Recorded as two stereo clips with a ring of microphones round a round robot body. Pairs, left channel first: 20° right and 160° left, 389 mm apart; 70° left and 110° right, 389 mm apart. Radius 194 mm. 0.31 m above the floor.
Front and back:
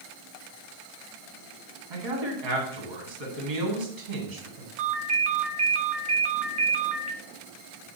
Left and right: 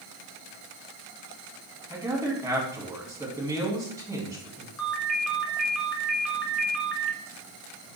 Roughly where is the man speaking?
Behind.